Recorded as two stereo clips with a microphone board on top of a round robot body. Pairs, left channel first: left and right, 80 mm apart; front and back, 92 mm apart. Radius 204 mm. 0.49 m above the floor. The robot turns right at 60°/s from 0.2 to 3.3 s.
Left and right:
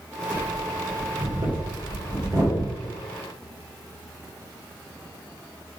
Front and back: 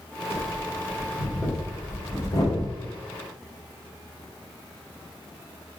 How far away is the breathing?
About 2 m.